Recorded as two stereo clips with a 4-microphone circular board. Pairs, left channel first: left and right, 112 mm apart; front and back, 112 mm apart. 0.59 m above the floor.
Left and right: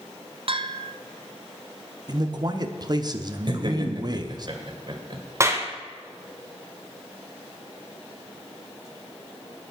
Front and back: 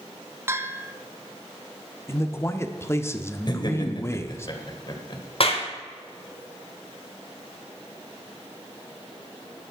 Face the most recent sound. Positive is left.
turn(degrees=-25)